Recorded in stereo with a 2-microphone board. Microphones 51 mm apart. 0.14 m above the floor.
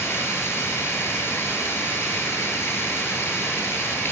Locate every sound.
0.0 s running water: 55° left (ahead or behind), 1.2 m